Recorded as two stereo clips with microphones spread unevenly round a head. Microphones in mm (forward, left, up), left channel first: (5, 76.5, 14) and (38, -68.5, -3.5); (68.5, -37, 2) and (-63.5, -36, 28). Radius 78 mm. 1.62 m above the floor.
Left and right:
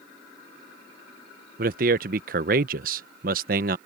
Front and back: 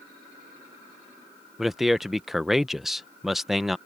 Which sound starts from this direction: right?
A man speaking, at 1.6 s.